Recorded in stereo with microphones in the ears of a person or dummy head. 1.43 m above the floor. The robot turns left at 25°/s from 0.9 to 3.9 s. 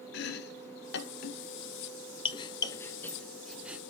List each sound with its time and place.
0.1 s chopping: 60° left (ahead or behind), 0.7 m; by 3.8 s 5° right (ahead or behind), 0.7 m